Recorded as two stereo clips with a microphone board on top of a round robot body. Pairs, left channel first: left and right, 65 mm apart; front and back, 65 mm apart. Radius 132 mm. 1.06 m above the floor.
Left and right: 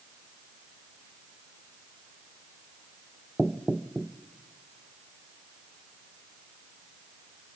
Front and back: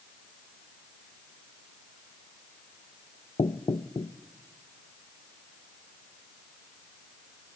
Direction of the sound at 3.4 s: 5° right.